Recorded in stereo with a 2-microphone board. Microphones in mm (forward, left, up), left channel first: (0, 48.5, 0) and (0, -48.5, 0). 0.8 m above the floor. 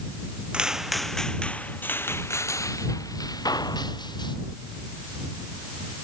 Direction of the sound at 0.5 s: 10° right (ahead or behind).